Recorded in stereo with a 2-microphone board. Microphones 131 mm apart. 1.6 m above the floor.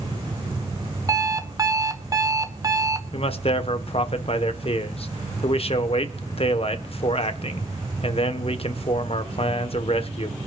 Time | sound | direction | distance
1.1 | an alarm clock | 25° right (ahead or behind) | 0.8 m
3.1 | a man speaking | 50° left (ahead or behind) | 1.2 m